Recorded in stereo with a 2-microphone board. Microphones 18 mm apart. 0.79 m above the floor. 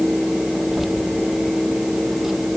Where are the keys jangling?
20° right (ahead or behind).